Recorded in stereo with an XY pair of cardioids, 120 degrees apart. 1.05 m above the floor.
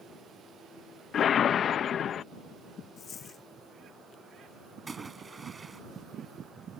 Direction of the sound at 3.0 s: 40° left.